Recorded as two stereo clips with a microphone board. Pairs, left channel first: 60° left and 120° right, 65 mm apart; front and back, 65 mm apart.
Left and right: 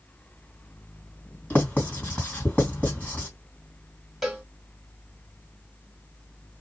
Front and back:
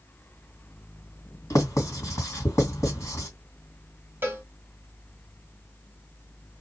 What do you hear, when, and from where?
1.5 s writing: straight ahead, 2 m
4.2 s a cowbell: 155° left, 1.5 m